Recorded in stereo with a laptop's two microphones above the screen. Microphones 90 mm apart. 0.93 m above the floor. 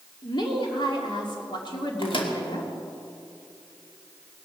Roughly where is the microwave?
Left.